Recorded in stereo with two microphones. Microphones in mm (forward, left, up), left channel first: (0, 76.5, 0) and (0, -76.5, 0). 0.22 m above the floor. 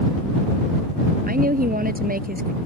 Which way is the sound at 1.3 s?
65° right (ahead or behind).